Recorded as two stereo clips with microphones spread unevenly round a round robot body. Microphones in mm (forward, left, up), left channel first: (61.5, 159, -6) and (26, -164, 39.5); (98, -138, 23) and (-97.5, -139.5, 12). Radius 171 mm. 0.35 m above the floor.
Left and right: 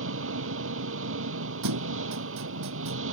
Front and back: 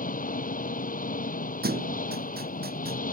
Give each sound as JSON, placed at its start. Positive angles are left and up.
{"t": 0.0, "sound": "an engine running", "azimuth_deg": -45}
{"t": 1.6, "sound": "a thud", "azimuth_deg": -140}